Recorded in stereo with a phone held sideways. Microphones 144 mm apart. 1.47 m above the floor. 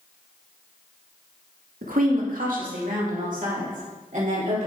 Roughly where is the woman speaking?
Right.